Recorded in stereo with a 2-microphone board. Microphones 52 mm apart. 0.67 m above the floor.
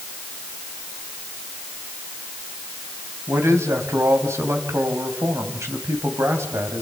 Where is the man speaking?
65° right (ahead or behind), 4 m.